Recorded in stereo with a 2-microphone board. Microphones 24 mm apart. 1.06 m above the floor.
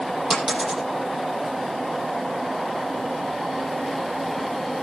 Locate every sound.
0.3 s a dropped coin: 15° right (ahead or behind), 9.5 m